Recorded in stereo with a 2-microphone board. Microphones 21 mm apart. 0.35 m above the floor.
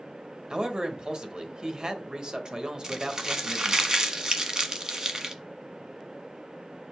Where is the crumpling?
40° right (ahead or behind), 1.2 m.